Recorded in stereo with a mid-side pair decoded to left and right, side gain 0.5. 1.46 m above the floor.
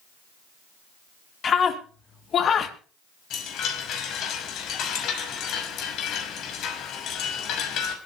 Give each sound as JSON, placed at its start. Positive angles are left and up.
{"t": 1.4, "sound": "a scream", "azimuth_deg": 45, "distance_m": 4.0}
{"t": 3.3, "sound": "a chime", "azimuth_deg": 65, "distance_m": 5.5}